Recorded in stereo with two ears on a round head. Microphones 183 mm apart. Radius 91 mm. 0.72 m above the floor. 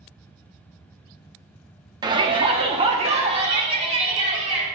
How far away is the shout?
About 0.8 m.